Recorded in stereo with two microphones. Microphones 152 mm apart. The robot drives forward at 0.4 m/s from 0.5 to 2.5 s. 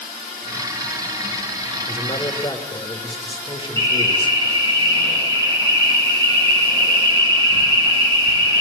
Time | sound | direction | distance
1.9 | a man speaking | 35° left (ahead or behind) | 1.2 m
3.8 | an alarm | 30° right (ahead or behind) | 5.5 m